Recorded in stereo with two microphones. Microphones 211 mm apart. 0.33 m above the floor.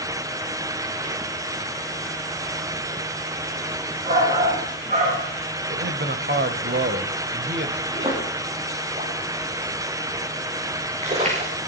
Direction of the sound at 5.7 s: 50° right (ahead or behind).